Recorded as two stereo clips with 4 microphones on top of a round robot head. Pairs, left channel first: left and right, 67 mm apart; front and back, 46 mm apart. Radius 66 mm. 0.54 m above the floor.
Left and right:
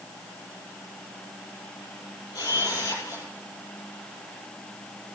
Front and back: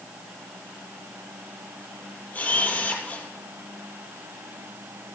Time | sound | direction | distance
2.3 | a camera shutter | 50° left | 6.5 m